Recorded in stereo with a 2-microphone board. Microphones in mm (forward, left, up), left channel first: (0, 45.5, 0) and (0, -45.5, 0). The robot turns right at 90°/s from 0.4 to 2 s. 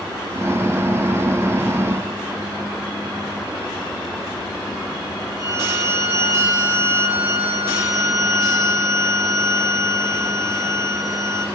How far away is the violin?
About 4.5 m.